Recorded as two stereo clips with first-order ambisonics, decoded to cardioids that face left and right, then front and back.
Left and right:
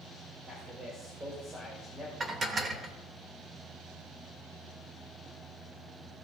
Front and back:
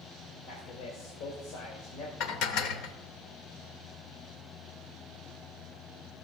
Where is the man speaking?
15° right, 2.0 m.